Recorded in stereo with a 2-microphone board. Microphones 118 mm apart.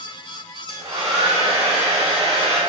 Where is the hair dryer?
65° right (ahead or behind), 1.0 m.